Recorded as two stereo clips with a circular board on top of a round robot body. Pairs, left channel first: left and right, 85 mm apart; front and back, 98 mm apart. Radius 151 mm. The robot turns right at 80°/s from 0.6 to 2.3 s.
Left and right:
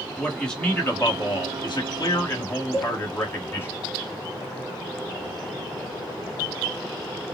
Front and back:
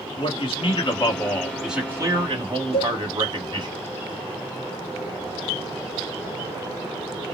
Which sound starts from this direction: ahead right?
A cowbell, at 2.7 s.